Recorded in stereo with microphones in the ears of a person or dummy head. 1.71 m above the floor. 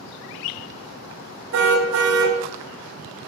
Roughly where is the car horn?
Right.